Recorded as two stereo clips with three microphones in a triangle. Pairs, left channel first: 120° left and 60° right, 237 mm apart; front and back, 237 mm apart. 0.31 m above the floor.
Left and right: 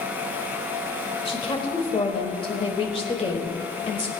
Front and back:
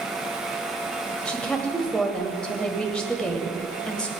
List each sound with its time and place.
1.2 s a woman speaking: 80° left, 1.3 m